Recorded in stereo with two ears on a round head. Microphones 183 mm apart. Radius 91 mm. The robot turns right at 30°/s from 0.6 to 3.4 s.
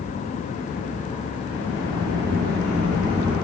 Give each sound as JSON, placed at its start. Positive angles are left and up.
{"t": 1.5, "sound": "a sliding door", "azimuth_deg": -85, "distance_m": 1.4}